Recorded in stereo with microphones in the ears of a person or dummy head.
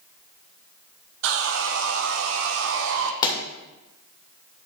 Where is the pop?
25° left (ahead or behind), 2 m.